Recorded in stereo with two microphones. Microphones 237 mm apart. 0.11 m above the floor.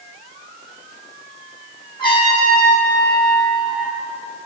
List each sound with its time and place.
2.0 s a trumpet: 20° left (ahead or behind), 4 m